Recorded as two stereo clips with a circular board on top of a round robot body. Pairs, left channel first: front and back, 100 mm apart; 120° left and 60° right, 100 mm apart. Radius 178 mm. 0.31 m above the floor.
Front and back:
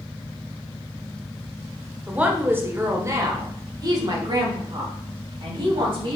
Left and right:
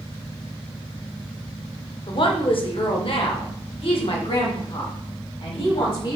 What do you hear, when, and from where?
2.1 s a woman speaking: 105° left, 1.8 m; by 6.2 s 150° left, 3.5 m